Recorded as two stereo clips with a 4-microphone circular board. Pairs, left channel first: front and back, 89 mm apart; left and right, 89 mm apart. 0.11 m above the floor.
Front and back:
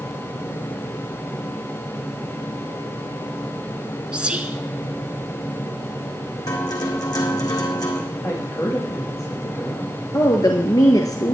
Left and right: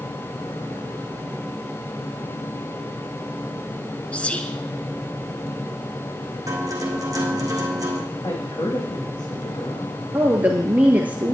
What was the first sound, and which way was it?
Whispering, 130° left.